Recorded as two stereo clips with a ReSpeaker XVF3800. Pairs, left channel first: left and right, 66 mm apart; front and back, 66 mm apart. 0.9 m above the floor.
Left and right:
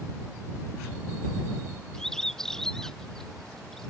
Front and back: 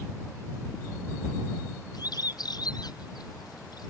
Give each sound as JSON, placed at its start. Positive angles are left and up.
{"t": 1.9, "sound": "a bird", "azimuth_deg": 10}